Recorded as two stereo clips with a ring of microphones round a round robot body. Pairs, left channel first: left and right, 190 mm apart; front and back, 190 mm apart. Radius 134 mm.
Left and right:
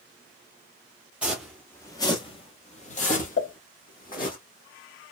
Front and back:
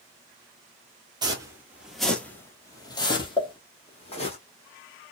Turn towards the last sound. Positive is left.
turn(degrees=65)